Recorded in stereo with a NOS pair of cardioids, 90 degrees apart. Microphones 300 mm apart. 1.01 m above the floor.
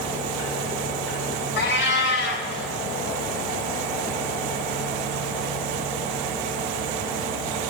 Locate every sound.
1.6 s a cat meowing: 40° left, 2.0 m